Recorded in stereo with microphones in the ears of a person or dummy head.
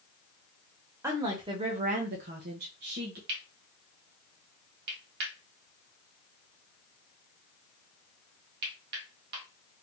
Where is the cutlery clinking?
60° right (ahead or behind), 1.6 m.